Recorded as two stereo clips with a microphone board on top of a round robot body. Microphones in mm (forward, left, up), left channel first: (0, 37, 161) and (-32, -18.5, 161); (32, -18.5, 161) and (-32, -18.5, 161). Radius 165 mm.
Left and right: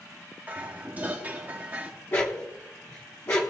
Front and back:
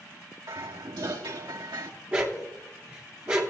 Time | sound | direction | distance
0.5 | dishes clattering | 175° left | 1.8 m
2.1 | a dog barking | 110° left | 0.9 m